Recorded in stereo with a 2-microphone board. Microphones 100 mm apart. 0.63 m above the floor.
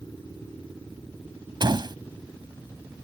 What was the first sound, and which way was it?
A door slam, 50° right (ahead or behind).